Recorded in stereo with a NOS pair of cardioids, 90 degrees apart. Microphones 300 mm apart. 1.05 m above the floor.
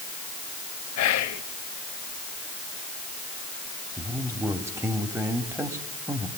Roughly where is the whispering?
Ahead left.